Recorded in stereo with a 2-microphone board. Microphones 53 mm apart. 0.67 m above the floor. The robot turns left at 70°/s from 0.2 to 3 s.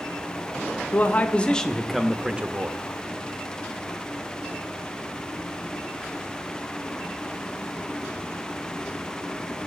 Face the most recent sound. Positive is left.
turn(degrees=-75)